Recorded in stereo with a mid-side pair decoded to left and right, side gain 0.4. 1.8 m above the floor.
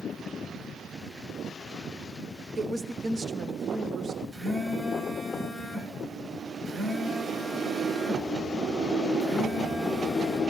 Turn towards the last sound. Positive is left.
turn(degrees=-55)